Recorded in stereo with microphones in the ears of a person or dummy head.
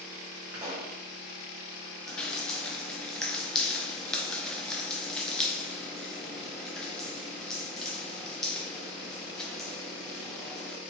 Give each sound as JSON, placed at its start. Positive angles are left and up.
{"t": 0.5, "sound": "a pop", "side_deg": -20, "distance_m": 1.4}
{"t": 2.1, "sound": "dripping", "side_deg": 10, "distance_m": 0.6}